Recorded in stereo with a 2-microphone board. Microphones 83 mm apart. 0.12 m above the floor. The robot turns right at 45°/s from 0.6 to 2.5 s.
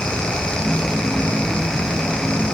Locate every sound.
Only background noise.